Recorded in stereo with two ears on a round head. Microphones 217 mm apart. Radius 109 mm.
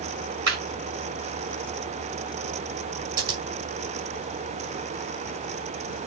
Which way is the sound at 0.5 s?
55° right (ahead or behind).